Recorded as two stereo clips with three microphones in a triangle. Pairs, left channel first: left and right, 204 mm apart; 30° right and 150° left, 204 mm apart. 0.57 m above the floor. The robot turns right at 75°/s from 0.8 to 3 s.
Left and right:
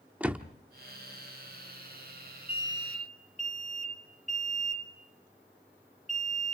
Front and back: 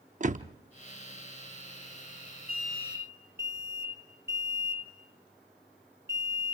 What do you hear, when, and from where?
0.2 s a door slam: 170° right, 0.7 m
2.5 s an alarm: 170° right, 2.5 m; by 6.5 s 135° right, 2.5 m